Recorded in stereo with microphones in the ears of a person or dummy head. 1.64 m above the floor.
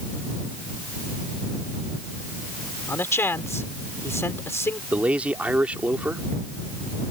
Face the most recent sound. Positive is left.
turn(degrees=-10)  # may be behind; listen again after turning